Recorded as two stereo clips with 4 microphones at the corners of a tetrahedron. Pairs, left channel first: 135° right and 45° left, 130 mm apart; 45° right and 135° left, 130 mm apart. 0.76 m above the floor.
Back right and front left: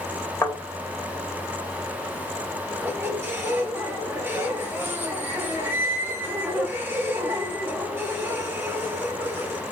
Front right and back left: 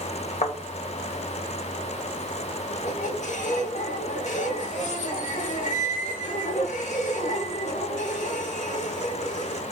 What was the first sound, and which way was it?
A thud, 70° right.